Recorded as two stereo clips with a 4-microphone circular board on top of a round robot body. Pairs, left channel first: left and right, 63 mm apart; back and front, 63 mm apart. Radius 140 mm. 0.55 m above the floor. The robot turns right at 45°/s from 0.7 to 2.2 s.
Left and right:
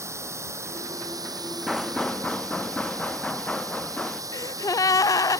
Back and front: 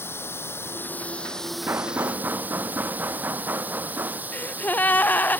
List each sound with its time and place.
0.0 s running water: 130° right; by 5.4 s 65° right
1.7 s knocking: straight ahead; by 4.2 s 25° left
4.3 s a gasp: 115° left